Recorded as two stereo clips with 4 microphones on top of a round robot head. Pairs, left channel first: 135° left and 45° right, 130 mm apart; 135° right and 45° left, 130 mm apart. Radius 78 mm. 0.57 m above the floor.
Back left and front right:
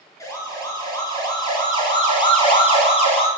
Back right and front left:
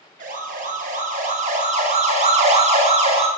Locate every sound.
0.2 s a siren: 70° left, 6.5 m; by 3.3 s 90° left, 6.5 m